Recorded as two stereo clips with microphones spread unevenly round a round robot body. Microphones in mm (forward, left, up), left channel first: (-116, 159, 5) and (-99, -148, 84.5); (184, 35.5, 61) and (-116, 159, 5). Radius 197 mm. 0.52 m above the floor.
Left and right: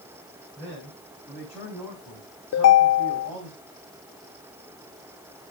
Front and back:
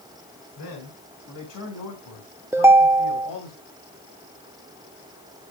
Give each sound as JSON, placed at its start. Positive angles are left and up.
{"t": 0.6, "sound": "a man speaking", "azimuth_deg": 10, "distance_m": 5.5}
{"t": 2.5, "sound": "a ringtone", "azimuth_deg": 80, "distance_m": 0.6}